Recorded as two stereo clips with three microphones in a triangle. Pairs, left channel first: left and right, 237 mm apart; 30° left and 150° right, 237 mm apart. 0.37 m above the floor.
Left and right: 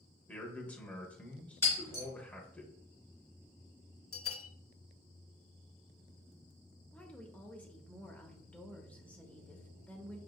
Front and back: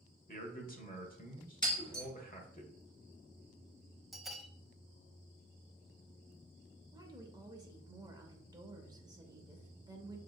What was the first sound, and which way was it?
A man speaking, 10° left.